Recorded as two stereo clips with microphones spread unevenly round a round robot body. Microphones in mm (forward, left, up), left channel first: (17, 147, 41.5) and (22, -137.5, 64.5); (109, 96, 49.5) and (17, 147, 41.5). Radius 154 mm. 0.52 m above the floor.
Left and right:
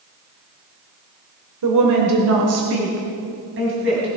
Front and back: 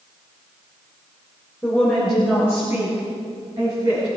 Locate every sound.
1.6 s a woman speaking: 110° right, 1.8 m; by 4.1 s 140° right, 4 m